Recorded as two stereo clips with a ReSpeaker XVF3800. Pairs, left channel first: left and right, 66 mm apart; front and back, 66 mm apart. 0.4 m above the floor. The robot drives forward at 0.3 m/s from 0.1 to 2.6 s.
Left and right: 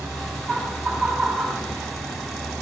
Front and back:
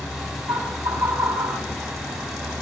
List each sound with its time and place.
0.5 s laughter: 170° right, 2.5 m; by 1.6 s 175° right, 3 m